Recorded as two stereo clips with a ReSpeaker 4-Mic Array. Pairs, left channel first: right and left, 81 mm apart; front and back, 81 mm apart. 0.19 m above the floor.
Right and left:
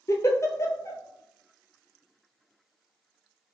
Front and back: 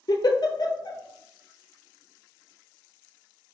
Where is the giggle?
35° right, 0.6 m.